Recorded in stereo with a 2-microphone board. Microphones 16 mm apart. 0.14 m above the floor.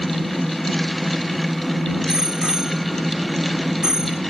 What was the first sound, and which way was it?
A bicycle bell, 40° right (ahead or behind).